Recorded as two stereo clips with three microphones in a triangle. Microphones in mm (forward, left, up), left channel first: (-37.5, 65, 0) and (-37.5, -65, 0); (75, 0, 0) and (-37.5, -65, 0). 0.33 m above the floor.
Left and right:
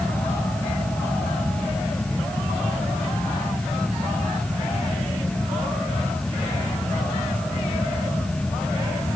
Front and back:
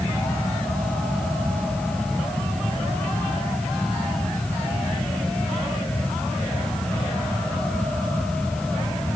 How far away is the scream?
I don't hear a scream.